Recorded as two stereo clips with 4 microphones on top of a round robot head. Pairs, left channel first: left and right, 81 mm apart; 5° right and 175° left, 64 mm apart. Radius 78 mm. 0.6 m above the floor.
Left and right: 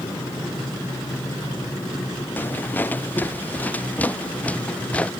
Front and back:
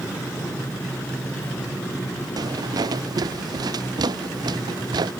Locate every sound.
2.4 s footsteps: 155° left; by 5.1 s 165° left